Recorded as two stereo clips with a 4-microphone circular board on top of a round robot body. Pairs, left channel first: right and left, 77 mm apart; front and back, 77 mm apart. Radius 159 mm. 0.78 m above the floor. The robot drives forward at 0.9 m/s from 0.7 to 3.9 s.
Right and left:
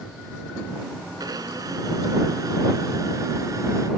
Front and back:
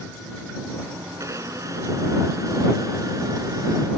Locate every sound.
1.2 s a blender: 130° left; by 3.9 s 140° left